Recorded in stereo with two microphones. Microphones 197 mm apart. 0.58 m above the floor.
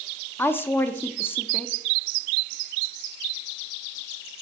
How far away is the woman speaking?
About 0.6 m.